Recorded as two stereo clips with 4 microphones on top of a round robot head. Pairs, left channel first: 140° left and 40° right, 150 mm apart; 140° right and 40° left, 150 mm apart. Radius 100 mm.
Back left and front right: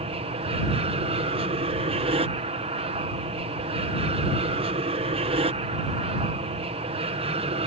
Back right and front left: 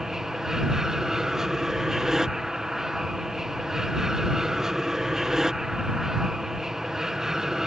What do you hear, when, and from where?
0.0 s an aircraft: 50° right